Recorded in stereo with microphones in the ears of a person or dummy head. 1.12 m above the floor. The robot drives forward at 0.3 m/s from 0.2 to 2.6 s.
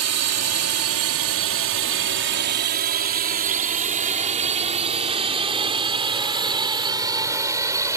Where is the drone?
70° right (ahead or behind); by 8.0 s 15° right (ahead or behind).